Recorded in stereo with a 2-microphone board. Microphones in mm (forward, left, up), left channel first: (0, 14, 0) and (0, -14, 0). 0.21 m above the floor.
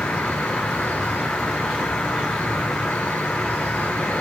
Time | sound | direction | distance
0.0 | an insect | 80° left | 0.8 m